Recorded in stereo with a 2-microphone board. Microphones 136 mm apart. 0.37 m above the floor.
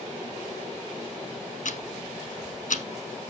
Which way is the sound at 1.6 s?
70° left (ahead or behind).